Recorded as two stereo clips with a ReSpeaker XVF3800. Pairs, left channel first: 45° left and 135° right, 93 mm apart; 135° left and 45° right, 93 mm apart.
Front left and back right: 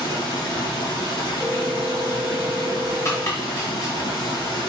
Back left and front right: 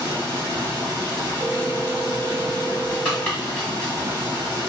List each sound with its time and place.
0.0 s running water: 10° left, 2.5 m
1.4 s a phone ringing: 5° left, 2.0 m
3.0 s chopping: 70° left, 1.3 m